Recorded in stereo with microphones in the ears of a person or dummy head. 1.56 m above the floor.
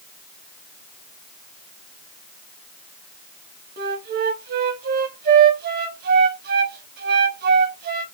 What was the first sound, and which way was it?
A flute, 50° right (ahead or behind).